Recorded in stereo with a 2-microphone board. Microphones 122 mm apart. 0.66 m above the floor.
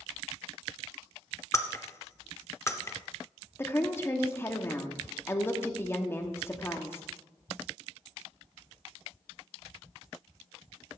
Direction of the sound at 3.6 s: 20° left (ahead or behind).